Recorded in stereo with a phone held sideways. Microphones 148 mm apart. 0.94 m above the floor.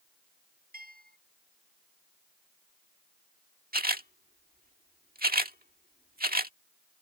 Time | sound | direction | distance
0.7 | a bell | 80° right | ?
3.7 | a camera shutter | 85° right | ?